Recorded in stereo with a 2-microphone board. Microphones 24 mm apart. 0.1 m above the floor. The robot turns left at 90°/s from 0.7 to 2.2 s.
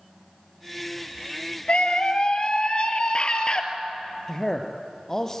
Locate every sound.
1.7 s a scream: 100° left, 2.5 m; by 3.6 s 55° left, 2.5 m
4.3 s a man speaking: 20° left (ahead or behind), 2 m